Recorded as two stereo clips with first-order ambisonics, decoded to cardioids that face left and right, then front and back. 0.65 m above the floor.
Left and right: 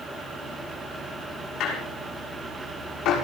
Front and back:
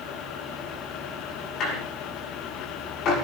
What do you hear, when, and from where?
1.6 s a squeak: 50° left, 6.5 m